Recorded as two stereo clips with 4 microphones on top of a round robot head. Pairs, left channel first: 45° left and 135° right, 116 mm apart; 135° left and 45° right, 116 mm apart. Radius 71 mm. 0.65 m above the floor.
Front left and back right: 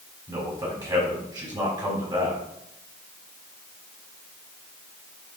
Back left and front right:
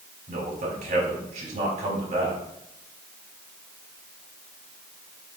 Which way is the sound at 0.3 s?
75° right.